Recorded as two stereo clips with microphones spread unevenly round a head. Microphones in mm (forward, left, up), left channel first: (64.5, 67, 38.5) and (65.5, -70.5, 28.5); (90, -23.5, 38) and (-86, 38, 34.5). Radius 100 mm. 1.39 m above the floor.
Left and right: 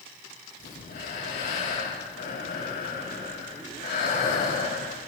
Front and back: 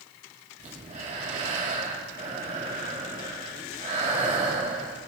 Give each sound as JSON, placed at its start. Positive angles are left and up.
{"t": 0.6, "sound": "breathing", "azimuth_deg": 105, "distance_m": 3.5}